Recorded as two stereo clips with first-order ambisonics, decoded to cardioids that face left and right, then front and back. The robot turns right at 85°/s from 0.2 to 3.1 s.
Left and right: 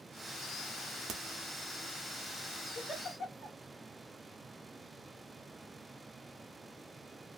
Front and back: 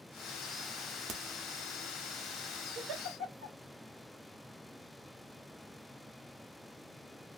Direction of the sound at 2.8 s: 160° left.